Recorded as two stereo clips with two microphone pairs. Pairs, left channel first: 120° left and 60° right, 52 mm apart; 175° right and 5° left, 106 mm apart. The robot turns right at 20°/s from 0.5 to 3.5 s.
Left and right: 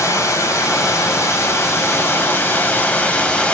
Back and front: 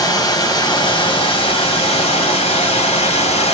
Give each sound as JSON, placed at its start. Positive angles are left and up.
{"t": 0.0, "sound": "running water", "azimuth_deg": 130, "distance_m": 1.7}